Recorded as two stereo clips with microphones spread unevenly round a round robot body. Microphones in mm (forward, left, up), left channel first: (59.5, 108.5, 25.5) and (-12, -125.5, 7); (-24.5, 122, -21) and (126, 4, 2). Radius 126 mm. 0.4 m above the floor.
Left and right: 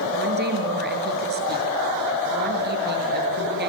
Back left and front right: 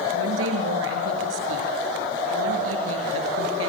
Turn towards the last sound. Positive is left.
turn(degrees=-60)